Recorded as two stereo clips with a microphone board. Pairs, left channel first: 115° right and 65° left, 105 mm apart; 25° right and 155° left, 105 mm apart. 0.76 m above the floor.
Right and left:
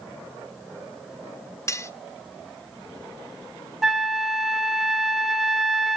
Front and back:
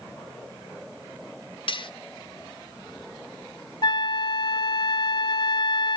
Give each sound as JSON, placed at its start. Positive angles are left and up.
{"t": 1.7, "sound": "cutlery clinking", "azimuth_deg": -50, "distance_m": 1.0}
{"t": 3.8, "sound": "a flute", "azimuth_deg": -20, "distance_m": 1.0}